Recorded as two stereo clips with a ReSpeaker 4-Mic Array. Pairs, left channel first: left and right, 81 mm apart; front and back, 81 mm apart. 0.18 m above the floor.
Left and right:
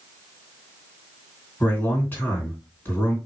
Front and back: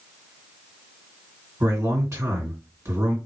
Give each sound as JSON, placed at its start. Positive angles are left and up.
{"t": 1.6, "sound": "a man speaking", "azimuth_deg": 140, "distance_m": 2.5}